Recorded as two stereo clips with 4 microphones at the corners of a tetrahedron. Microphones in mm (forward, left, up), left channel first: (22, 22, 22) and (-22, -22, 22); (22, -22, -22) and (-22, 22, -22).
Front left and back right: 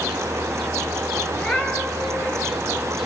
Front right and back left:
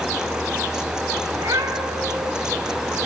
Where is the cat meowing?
110° left, 4 m.